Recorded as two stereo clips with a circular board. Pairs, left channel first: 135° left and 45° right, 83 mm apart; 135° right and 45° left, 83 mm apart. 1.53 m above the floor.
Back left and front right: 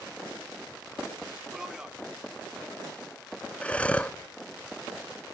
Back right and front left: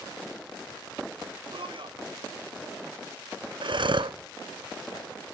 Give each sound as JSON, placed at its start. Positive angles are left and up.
{"t": 1.5, "sound": "a man speaking", "azimuth_deg": 35, "distance_m": 1.5}
{"t": 3.6, "sound": "breathing", "azimuth_deg": 60, "distance_m": 0.6}